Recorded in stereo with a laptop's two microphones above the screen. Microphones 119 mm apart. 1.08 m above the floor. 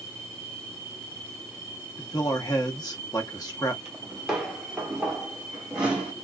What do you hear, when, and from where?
2.0 s a man speaking: 35° left (ahead or behind), 1.1 m
3.9 s footsteps: 5° right (ahead or behind), 1.2 m; by 6.1 s 10° right (ahead or behind), 1.2 m